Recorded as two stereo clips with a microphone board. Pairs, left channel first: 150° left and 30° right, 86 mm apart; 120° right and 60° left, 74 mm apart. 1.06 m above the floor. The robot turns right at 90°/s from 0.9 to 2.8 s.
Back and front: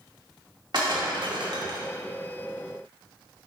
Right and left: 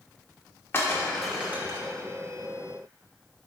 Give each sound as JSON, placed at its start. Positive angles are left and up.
{"t": 0.7, "sound": "breaking glass", "azimuth_deg": -60, "distance_m": 1.7}